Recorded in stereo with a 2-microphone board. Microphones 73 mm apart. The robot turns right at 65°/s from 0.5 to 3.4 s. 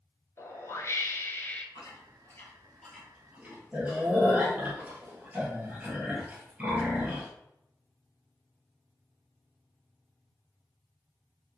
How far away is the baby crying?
I don't hear a baby crying.